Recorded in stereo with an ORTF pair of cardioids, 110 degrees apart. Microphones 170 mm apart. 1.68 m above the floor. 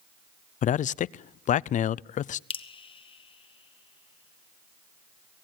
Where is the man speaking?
50° left, 0.5 m.